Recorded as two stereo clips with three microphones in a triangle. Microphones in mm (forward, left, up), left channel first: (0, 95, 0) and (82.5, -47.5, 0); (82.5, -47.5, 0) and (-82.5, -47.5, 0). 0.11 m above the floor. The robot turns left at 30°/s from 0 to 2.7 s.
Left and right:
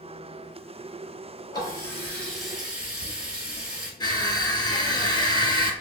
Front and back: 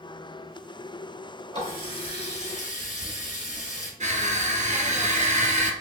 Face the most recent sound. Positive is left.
turn(degrees=170)